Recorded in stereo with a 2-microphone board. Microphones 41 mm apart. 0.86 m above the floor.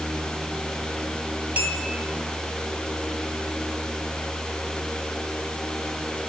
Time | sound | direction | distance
1.6 | a clink | 35° right (ahead or behind) | 1.2 m